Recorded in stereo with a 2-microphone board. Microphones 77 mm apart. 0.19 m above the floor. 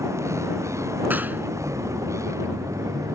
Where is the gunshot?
25° right (ahead or behind).